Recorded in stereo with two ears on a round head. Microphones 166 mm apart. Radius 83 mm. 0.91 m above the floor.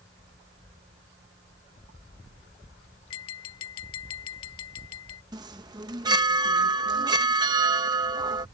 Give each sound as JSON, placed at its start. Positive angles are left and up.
{"t": 3.1, "sound": "tapping", "side_deg": 90}
{"t": 5.3, "sound": "a chime", "side_deg": -20}